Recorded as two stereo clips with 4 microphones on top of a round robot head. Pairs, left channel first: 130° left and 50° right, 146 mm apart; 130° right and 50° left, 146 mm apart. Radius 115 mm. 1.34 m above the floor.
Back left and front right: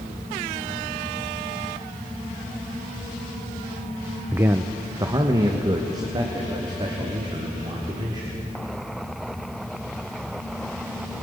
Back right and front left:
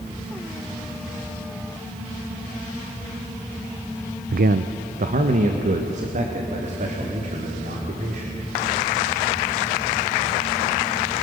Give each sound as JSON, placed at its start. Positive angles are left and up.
{"t": 4.3, "sound": "a man speaking", "azimuth_deg": 30, "distance_m": 0.5}